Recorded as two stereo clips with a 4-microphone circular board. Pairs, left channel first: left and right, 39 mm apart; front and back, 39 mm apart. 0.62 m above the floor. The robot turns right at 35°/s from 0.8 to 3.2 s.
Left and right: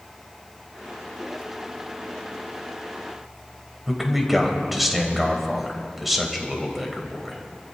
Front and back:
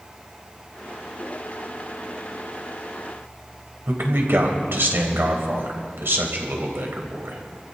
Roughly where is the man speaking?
Behind.